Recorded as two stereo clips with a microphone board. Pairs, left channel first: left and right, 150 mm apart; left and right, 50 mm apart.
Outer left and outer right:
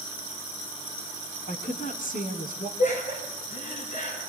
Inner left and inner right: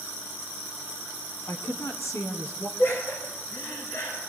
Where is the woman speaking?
60° left (ahead or behind), 3 m; by 2.7 s 70° left (ahead or behind), 3.5 m.